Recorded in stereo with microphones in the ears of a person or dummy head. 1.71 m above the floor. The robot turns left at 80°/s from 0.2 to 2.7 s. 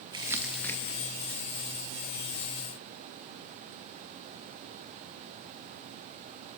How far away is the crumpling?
About 1.8 m.